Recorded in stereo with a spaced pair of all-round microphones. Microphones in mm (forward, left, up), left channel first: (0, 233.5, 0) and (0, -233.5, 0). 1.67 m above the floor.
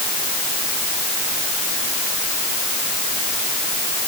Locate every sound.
Only background noise.